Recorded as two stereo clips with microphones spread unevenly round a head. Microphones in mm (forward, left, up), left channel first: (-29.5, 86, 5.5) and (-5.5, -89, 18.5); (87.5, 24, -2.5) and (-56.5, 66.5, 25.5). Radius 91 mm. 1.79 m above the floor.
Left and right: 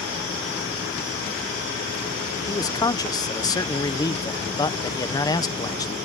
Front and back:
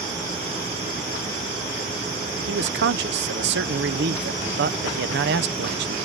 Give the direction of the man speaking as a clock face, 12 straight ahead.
6 o'clock.